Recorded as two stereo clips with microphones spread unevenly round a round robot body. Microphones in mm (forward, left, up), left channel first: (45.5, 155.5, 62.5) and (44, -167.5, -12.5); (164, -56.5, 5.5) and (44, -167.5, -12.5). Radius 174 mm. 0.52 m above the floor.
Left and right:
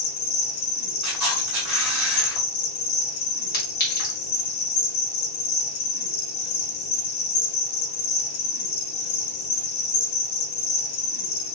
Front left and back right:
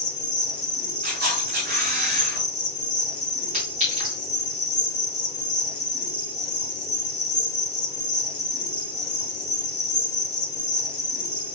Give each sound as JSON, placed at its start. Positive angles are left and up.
{"t": 0.0, "sound": "an insect", "azimuth_deg": 85, "distance_m": 1.6}
{"t": 1.0, "sound": "a camera shutter", "azimuth_deg": -170, "distance_m": 2.5}
{"t": 3.5, "sound": "a clink", "azimuth_deg": 155, "distance_m": 2.0}